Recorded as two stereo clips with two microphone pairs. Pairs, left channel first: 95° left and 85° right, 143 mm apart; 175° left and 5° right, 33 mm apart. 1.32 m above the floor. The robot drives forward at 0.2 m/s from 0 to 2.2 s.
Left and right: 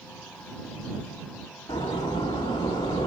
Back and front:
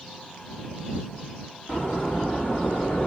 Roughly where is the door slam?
Behind left.